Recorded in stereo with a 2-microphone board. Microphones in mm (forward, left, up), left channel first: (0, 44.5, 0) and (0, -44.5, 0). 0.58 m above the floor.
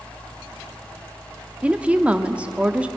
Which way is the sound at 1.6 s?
15° right (ahead or behind).